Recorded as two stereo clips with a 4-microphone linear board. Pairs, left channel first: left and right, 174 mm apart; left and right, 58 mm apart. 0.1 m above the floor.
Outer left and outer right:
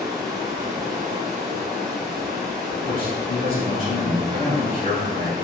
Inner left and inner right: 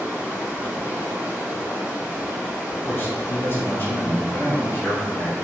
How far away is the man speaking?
About 1.8 m.